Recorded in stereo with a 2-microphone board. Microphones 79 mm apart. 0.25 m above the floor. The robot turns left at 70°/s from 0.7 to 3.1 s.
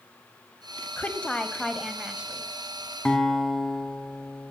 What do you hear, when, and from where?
1.0 s a woman speaking: 20° left (ahead or behind), 1.2 m; by 2.5 s 20° right (ahead or behind), 1.2 m
3.0 s a guitar: 10° left (ahead or behind), 1.7 m; by 4.5 s 5° left (ahead or behind), 1.7 m